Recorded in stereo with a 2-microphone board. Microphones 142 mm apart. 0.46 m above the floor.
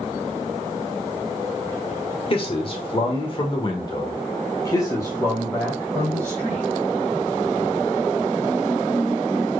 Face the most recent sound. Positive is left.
turn(degrees=15)  # may be behind; listen again after turning